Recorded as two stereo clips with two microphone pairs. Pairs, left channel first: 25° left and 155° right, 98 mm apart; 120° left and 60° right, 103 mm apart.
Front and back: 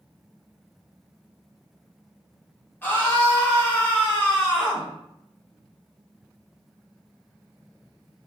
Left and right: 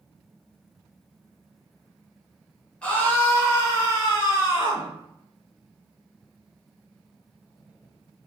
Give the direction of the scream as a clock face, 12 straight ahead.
10 o'clock.